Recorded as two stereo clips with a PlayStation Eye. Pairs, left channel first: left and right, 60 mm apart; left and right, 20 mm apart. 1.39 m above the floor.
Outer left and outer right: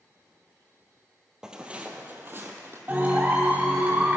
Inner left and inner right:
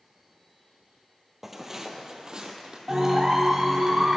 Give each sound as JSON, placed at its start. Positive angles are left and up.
{"t": 1.4, "sound": "footsteps", "side_deg": -10, "distance_m": 1.7}
{"t": 2.9, "sound": "a clap", "side_deg": -30, "distance_m": 3.5}